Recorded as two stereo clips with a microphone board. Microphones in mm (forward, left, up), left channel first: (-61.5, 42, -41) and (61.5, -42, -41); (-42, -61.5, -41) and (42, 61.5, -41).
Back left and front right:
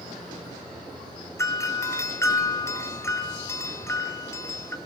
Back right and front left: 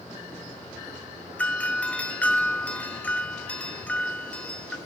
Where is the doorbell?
170° left, 1.8 m.